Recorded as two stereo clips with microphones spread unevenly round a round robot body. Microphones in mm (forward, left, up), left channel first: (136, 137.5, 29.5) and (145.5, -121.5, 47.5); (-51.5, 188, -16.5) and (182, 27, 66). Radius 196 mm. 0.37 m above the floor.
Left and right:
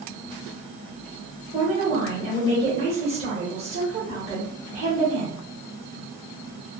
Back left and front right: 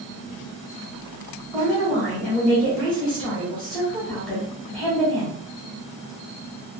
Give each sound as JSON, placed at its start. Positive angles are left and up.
{"t": 1.5, "sound": "a woman speaking", "azimuth_deg": -150, "distance_m": 1.2}